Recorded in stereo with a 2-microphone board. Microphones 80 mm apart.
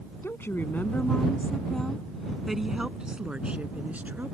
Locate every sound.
0.2 s a woman speaking: 35° left (ahead or behind); by 4.3 s 25° right (ahead or behind)